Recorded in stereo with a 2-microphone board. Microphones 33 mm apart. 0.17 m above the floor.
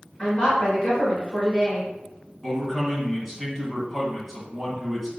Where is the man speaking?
5° left (ahead or behind), 1.4 m.